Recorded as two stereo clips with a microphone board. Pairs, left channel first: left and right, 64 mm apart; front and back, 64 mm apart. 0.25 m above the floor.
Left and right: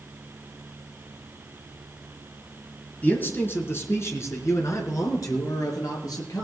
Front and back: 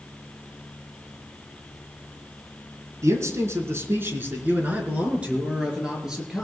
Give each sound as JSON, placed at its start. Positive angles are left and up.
{"t": 3.0, "sound": "a man speaking", "azimuth_deg": 150, "distance_m": 3.0}